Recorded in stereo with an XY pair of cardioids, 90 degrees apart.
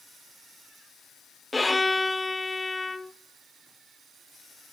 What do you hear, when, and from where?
1.5 s a violin: 15° left, 0.7 m